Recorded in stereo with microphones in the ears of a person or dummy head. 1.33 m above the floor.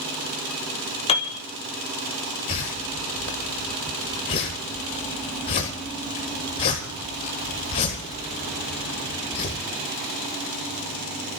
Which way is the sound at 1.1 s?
30° left (ahead or behind).